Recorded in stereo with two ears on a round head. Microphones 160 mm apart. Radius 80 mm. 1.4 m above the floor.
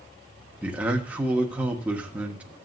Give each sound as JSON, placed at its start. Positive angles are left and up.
{"t": 0.6, "sound": "a man speaking", "side_deg": -10, "distance_m": 1.3}